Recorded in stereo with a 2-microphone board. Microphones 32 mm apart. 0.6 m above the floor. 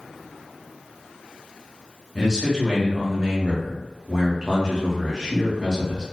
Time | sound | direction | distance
2.1 | a man speaking | 20° right (ahead or behind) | 0.8 m